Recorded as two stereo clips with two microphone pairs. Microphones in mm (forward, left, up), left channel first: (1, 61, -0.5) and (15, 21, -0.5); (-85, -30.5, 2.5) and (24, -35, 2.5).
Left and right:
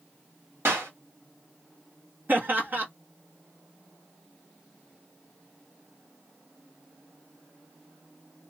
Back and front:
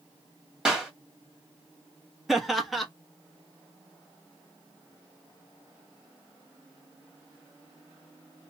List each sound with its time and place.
0.7 s a clap: 85° right, 1.5 m
2.3 s laughter: 95° right, 0.9 m